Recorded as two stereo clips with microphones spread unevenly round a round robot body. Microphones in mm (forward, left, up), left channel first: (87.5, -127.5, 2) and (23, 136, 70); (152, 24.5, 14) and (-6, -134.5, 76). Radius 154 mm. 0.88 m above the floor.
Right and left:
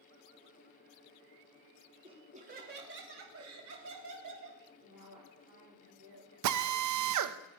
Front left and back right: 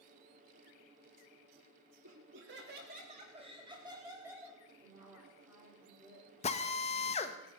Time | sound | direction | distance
2.0 | laughter | straight behind | 1.8 m
4.8 | a woman speaking | 145° left | 3.5 m
6.4 | a drill | 85° left | 0.7 m